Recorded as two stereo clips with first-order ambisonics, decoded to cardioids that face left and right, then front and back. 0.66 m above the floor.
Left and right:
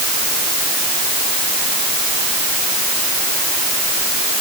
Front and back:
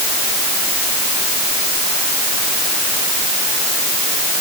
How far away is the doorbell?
No doorbell in this recording.